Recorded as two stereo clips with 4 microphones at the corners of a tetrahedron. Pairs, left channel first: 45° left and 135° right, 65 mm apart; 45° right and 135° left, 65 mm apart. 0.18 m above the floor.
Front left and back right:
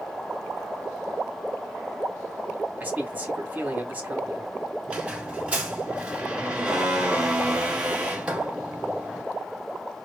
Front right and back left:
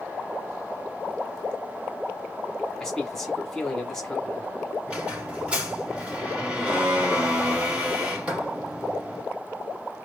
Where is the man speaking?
120° right, 1.1 m.